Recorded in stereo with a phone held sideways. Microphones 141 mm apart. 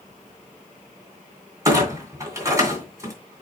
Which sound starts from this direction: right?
A clunk, at 1.6 s.